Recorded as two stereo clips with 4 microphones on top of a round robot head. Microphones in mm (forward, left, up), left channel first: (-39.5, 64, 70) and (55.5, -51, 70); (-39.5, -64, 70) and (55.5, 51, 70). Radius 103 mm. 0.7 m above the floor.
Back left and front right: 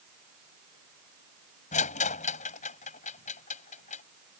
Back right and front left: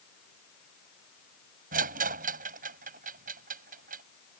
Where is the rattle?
85° left.